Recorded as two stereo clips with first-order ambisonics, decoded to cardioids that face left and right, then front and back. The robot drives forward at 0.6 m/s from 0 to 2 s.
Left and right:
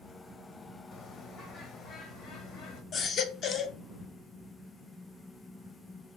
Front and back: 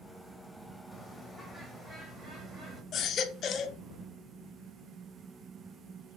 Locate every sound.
0.9 s a bird: 80° left, 1.7 m; by 2.8 s 120° left, 1.8 m
2.9 s a baby crying: 45° left, 0.9 m